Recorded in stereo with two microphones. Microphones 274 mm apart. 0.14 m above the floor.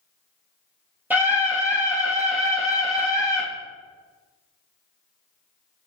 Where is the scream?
5° right (ahead or behind), 4 m.